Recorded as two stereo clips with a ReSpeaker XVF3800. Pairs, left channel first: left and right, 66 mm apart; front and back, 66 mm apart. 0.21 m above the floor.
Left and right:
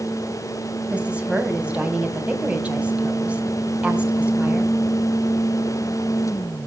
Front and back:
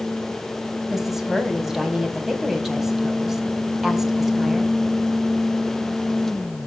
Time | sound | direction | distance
0.9 | a woman speaking | 105° right | 1.4 m